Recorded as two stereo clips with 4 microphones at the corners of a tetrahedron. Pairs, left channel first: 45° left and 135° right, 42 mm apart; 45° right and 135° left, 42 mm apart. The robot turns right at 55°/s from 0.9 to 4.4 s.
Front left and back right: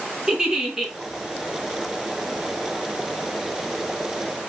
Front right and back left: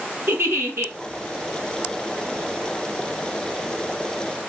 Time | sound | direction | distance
0.3 | a giggle | 150° left | 1.5 m